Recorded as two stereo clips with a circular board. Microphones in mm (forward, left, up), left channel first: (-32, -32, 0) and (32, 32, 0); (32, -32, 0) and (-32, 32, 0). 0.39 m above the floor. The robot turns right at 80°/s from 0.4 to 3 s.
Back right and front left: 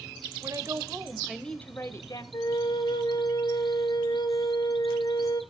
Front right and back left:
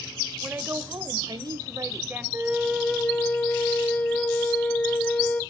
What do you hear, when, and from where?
0.4 s a woman speaking: 60° left, 1.7 m; by 2.2 s 155° right, 1.7 m
2.3 s a flute: 170° right, 1.3 m; by 5.4 s 115° right, 1.3 m